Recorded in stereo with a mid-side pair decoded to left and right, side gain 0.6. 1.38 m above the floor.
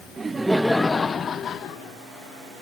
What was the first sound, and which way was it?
Laughter, 25° right.